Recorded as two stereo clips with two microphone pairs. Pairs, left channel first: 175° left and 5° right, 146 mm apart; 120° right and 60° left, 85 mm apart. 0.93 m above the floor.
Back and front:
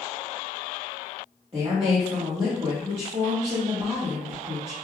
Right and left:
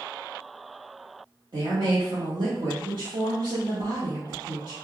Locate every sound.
1.5 s a woman speaking: 40° left, 1.0 m